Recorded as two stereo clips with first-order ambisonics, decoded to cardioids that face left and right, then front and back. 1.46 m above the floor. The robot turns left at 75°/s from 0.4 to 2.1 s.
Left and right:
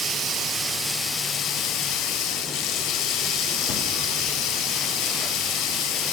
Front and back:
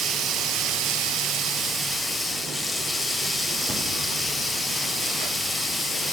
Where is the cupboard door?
110° left, 1.1 m.